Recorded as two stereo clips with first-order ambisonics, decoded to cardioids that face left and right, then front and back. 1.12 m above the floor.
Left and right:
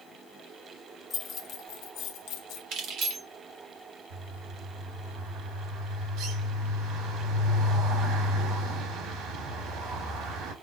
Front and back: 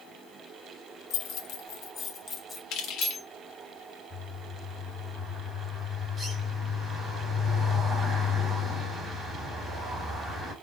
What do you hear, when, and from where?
1.1 s keys jangling: 25° left, 1.0 m; by 2.6 s 70° left, 1.4 m
2.7 s keys jangling: 45° right, 1.4 m
4.1 s a bird: 95° right, 3 m